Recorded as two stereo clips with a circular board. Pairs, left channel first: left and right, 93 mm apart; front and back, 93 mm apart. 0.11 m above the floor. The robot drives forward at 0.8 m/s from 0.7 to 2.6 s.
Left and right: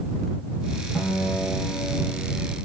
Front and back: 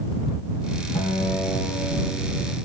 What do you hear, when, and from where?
0.9 s a guitar: 10° left, 7 m